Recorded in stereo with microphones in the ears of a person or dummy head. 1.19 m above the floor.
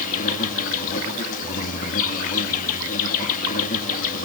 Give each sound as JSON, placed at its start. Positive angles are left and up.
{"t": 0.0, "sound": "an insect", "side_deg": 45, "distance_m": 3.0}